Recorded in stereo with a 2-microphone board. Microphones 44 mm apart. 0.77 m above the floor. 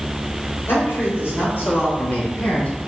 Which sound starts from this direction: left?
A man speaking, at 0.7 s.